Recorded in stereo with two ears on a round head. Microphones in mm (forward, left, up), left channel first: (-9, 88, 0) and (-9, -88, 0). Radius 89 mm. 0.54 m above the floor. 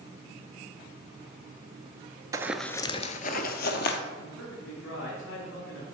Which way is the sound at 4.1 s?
75° left (ahead or behind).